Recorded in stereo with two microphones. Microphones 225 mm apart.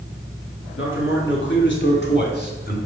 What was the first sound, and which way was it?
A man speaking, 60° left (ahead or behind).